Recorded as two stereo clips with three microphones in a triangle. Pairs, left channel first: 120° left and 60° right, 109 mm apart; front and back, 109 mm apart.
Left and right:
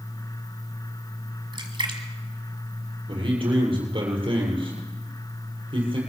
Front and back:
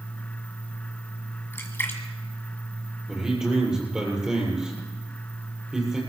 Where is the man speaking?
95° right, 7 m.